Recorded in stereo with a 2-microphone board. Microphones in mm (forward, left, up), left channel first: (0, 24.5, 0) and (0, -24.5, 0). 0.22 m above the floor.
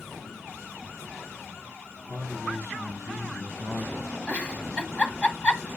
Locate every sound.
2.1 s a man speaking: 75° left (ahead or behind), 3.5 m; by 4.0 s 25° left (ahead or behind), 1.2 m
4.3 s a giggle: 25° left (ahead or behind), 1.1 m